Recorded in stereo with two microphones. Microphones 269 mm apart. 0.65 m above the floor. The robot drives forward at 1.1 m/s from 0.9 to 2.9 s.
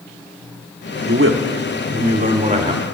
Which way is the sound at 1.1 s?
50° right (ahead or behind).